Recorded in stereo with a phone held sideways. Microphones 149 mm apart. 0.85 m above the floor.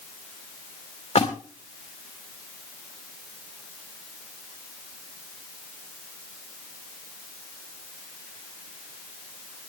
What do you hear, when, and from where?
1.1 s a splash: 50° left (ahead or behind), 3.5 m